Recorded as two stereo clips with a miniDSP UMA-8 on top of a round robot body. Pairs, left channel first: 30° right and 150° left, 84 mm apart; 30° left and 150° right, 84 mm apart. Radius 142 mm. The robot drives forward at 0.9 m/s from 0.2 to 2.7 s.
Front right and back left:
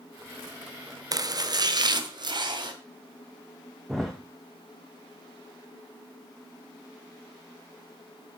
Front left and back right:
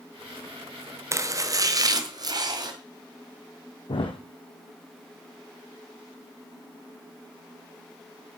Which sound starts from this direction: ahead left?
A thud, at 3.9 s.